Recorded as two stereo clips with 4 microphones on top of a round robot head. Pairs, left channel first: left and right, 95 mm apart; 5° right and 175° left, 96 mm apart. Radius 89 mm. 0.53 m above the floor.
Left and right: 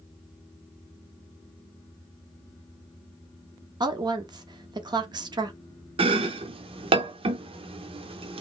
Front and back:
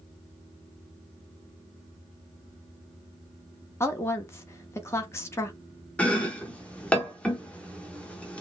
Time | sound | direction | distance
3.8 | a woman speaking | 60° right | 1.0 m
6.0 | chopping | 80° right | 0.9 m